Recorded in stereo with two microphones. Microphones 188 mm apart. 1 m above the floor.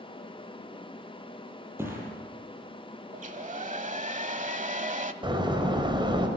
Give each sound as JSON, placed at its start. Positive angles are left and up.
{"t": 1.8, "sound": "a thud", "side_deg": -10, "distance_m": 7.5}
{"t": 3.1, "sound": "a hair dryer", "side_deg": -40, "distance_m": 1.1}
{"t": 5.2, "sound": "a door slam", "side_deg": -25, "distance_m": 3.5}